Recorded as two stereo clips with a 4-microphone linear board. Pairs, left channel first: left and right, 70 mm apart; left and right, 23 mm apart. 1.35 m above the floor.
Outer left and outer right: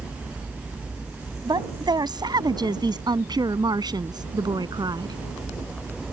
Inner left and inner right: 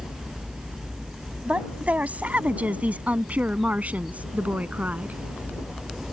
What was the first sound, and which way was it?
A woman speaking, 85° right.